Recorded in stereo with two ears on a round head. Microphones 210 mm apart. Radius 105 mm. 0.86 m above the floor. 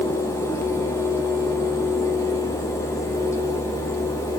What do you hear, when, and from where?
Only background noise.